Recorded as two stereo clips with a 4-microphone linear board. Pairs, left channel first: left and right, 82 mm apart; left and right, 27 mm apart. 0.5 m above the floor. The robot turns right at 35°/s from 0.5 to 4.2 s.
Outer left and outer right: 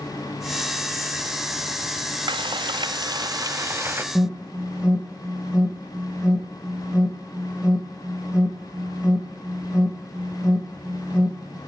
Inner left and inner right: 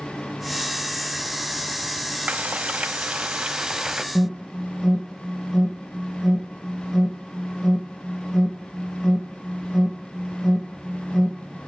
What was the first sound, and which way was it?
Frying, 90° right.